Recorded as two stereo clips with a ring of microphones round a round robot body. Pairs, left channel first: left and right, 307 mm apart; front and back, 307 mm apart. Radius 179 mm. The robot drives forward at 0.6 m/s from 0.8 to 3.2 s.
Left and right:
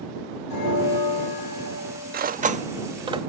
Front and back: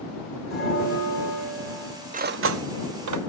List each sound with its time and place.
0.5 s a bell: 90° left, 3.5 m; by 2.2 s 105° left, 3.5 m
2.1 s cutlery clinking: 130° right, 0.5 m; by 3.2 s 165° right, 1.0 m